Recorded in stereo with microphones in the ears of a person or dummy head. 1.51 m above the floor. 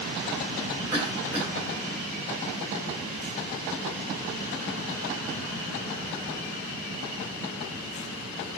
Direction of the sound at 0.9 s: 5° right (ahead or behind).